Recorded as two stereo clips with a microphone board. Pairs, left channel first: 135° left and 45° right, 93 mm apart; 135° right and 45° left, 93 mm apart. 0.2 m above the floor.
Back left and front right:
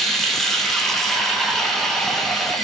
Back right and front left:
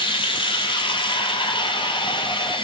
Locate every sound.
0.0 s running water: 140° right, 0.8 m